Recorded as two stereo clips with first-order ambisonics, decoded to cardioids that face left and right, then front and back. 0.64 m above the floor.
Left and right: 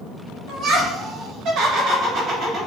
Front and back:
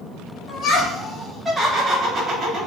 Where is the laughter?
45° right, 1.0 m; by 2.7 s 140° right, 1.1 m.